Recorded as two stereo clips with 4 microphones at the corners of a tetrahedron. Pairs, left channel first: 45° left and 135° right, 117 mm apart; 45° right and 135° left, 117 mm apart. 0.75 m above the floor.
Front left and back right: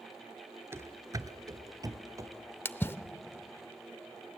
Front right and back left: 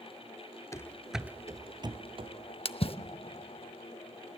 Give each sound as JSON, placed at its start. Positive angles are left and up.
{"t": 0.7, "sound": "running footsteps", "azimuth_deg": -85, "distance_m": 0.8}
{"t": 2.6, "sound": "a splash", "azimuth_deg": -20, "distance_m": 0.6}